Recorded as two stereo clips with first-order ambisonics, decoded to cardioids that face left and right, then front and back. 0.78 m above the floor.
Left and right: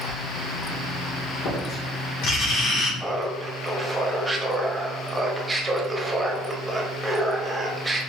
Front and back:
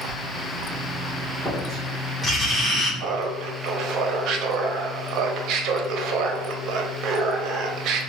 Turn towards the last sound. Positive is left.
turn(degrees=-170)